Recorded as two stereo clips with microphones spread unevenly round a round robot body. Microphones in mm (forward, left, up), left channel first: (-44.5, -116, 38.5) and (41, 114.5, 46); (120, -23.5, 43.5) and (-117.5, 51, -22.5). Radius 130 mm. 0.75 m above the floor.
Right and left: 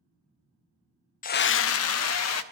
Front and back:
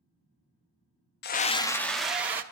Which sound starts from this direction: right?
A scream, at 1.2 s.